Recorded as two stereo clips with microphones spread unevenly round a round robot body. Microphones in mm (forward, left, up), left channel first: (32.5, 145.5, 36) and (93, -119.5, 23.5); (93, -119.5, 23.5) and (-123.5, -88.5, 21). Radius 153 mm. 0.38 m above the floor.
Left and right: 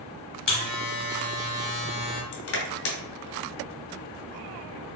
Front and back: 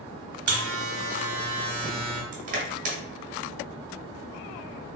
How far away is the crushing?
About 0.9 m.